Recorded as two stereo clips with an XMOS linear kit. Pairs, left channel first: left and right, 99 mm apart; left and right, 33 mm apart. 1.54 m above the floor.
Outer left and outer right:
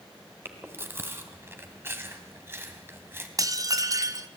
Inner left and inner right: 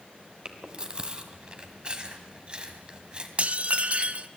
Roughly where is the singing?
No singing in this recording.